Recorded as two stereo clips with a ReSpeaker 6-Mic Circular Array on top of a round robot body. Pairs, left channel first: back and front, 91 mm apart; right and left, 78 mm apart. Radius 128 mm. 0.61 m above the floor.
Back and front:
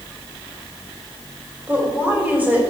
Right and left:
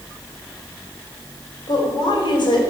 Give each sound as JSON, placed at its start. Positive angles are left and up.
{"t": 1.7, "sound": "a woman speaking", "azimuth_deg": -70, "distance_m": 4.0}